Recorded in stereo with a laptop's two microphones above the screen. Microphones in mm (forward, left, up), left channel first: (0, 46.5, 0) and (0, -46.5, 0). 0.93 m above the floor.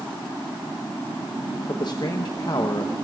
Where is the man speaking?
50° left (ahead or behind), 0.8 m.